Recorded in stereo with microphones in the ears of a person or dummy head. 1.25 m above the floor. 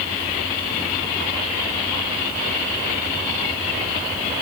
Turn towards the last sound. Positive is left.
No sound to turn to.